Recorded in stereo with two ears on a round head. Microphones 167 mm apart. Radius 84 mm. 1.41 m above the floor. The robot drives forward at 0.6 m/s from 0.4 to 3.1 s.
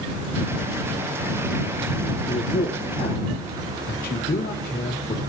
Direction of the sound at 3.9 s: 55° left (ahead or behind).